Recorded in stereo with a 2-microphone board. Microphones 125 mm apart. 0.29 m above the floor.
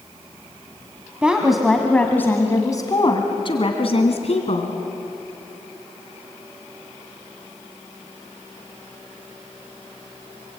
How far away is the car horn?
I don't hear a car horn.